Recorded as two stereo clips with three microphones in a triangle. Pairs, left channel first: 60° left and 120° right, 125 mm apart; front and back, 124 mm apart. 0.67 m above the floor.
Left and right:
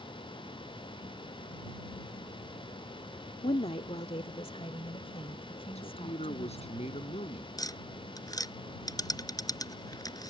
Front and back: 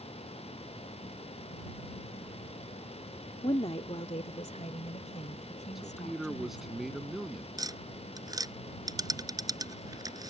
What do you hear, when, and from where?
3.4 s a woman speaking: 40° left; by 6.8 s 15° left
5.8 s a man speaking: 90° left
7.6 s tapping: 120° left